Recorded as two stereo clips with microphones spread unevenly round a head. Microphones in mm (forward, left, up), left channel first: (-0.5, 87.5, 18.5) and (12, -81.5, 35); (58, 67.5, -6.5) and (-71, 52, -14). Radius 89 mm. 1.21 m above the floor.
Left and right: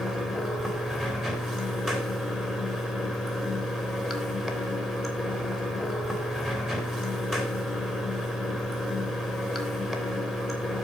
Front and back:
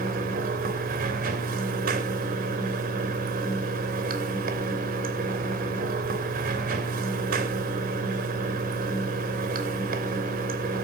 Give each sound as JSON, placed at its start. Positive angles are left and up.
{"t": 0.0, "sound": "running water", "azimuth_deg": -175, "distance_m": 2.0}